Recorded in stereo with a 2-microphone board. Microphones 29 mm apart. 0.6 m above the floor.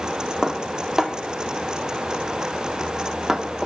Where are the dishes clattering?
15° right (ahead or behind), 0.6 m.